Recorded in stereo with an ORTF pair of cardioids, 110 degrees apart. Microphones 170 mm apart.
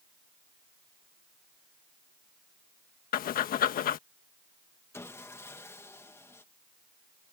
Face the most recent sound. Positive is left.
turn(degrees=15)